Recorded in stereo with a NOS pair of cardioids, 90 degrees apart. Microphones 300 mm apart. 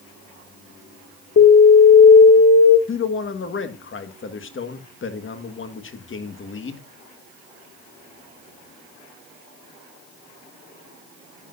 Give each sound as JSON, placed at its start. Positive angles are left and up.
{"t": 1.4, "sound": "an alarm", "azimuth_deg": 50, "distance_m": 2.5}
{"t": 2.9, "sound": "a man speaking", "azimuth_deg": 40, "distance_m": 1.7}